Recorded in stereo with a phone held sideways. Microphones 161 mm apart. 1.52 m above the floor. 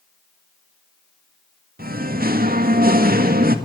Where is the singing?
65° right (ahead or behind), 1.8 m.